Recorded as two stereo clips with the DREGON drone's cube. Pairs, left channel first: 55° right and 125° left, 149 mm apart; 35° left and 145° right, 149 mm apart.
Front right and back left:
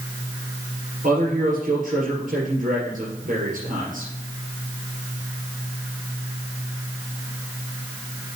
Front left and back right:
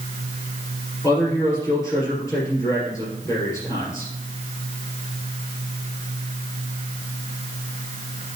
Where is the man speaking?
105° left, 3.5 m.